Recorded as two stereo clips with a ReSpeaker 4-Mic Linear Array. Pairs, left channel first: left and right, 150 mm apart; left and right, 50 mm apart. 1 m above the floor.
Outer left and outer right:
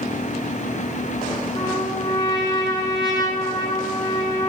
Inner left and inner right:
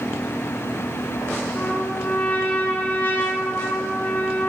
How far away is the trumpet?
About 7 m.